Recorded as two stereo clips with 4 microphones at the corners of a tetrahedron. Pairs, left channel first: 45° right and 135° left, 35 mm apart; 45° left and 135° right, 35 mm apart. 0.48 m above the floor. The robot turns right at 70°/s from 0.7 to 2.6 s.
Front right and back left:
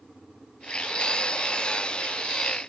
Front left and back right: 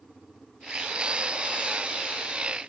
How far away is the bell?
No bell in this recording.